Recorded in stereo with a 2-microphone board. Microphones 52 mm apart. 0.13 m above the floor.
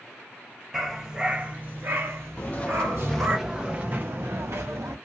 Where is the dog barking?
5° right (ahead or behind), 1.2 m; by 3.4 s 55° right (ahead or behind), 1.6 m.